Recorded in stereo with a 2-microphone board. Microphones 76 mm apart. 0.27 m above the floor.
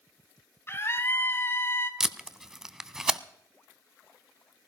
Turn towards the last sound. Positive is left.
turn(degrees=-5)  # may be behind; listen again after turning